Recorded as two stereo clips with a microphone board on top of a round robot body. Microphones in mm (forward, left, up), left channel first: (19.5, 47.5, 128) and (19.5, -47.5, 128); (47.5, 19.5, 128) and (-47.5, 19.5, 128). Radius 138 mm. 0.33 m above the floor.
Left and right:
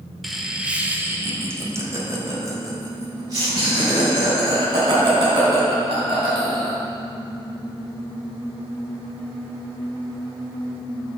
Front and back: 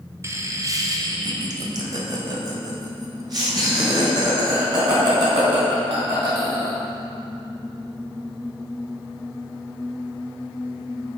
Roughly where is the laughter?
Behind.